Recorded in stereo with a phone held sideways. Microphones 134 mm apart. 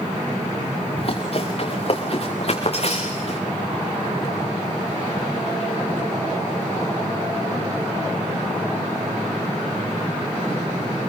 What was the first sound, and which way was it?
Running footsteps, 45° left (ahead or behind).